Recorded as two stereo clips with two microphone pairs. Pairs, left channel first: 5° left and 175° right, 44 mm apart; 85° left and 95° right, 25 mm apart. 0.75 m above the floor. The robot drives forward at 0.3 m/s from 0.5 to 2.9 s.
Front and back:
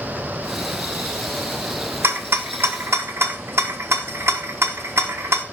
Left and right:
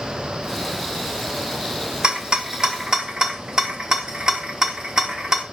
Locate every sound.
2.0 s a rattle: 150° right, 0.7 m; by 5.4 s 155° right, 0.9 m